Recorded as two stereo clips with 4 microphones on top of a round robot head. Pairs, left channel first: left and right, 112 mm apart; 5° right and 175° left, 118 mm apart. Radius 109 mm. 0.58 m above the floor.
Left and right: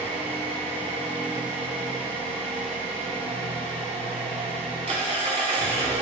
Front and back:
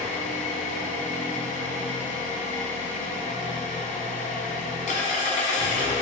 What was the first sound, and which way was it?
An engine running, 40° right.